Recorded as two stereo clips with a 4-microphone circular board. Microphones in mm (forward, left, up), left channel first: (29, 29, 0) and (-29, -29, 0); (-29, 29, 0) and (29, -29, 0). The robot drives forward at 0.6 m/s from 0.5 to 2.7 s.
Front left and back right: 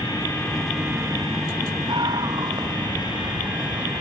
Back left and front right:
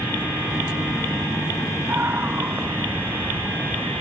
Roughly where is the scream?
Right.